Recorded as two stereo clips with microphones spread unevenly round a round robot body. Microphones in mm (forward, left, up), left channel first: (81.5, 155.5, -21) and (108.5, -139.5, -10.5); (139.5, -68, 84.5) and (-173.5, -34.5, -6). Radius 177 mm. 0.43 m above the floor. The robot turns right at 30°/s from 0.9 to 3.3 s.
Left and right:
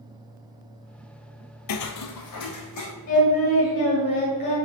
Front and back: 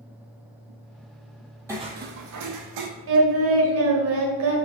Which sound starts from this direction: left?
Footsteps, at 1.7 s.